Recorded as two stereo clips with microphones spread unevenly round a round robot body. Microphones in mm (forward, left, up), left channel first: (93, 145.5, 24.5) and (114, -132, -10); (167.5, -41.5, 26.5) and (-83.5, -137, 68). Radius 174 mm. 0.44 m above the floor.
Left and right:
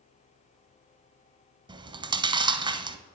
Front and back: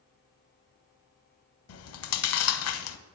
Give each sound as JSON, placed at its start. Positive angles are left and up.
{"t": 1.7, "sound": "chewing", "azimuth_deg": -10, "distance_m": 0.5}